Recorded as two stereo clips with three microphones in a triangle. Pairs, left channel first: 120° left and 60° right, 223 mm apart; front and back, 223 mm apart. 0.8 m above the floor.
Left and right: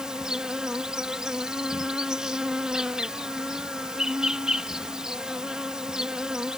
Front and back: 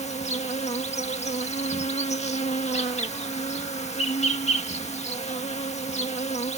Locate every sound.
0.0 s an insect: 25° left